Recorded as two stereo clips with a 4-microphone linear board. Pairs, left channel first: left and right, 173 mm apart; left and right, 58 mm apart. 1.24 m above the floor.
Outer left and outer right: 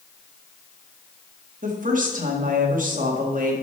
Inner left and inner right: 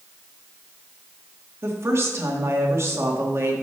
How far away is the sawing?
I don't hear sawing.